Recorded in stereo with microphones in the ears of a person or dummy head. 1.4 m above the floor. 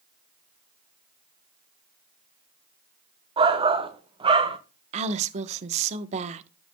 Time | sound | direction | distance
3.4 | a shout | 30° right (ahead or behind) | 1.4 m
4.9 | a woman speaking | 40° right (ahead or behind) | 1.0 m